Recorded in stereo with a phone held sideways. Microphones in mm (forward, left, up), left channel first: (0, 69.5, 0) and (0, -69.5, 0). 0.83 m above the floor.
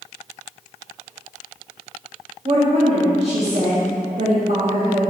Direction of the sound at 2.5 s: 50° right (ahead or behind).